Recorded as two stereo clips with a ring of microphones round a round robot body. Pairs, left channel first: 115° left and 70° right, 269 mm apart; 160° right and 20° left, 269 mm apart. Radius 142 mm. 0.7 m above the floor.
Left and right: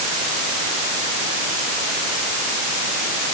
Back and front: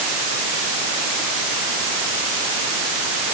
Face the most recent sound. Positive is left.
No sound to turn to.